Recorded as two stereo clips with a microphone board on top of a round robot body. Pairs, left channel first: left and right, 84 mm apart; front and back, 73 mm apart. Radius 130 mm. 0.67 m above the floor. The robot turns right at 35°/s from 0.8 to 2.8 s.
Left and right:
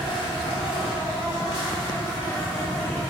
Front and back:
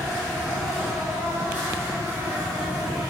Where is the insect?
85° left, 2 m; by 3.1 s 155° left, 2 m.